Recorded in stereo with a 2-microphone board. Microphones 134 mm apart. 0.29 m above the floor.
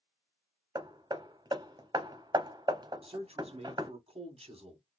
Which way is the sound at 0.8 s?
35° right (ahead or behind).